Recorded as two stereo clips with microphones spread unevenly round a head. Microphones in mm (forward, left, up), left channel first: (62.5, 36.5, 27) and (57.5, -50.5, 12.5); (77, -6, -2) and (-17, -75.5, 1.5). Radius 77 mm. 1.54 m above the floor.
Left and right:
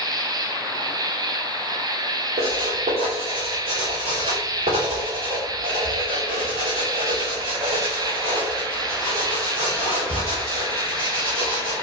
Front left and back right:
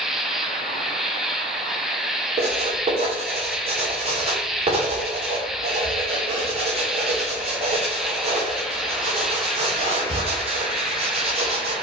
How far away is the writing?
About 3 m.